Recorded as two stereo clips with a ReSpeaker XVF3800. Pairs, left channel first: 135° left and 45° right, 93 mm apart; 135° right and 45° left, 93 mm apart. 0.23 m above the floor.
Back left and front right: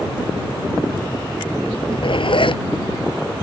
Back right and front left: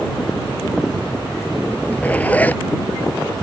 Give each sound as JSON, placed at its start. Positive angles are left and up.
{"t": 1.7, "sound": "a zipper", "azimuth_deg": 150}